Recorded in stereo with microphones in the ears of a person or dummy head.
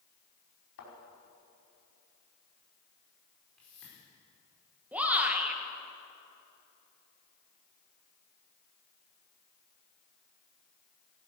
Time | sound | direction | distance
0.8 | a thud | 70° left (ahead or behind) | 5 m
3.6 | a whoosh | 5° left (ahead or behind) | 5 m
4.9 | a shout | 10° right (ahead or behind) | 1.9 m